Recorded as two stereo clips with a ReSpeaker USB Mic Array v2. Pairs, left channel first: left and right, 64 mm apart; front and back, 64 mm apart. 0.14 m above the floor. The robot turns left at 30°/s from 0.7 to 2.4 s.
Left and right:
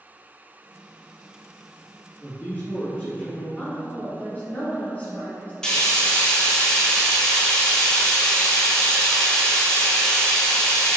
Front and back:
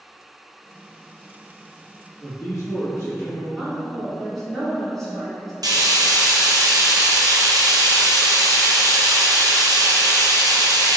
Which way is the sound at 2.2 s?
35° left.